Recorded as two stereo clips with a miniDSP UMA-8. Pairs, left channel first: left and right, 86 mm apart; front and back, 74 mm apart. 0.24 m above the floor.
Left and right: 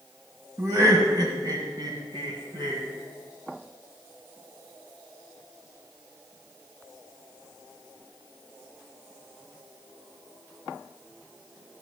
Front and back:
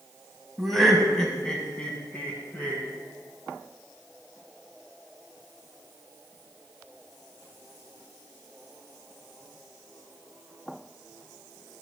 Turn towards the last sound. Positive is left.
turn(degrees=-65)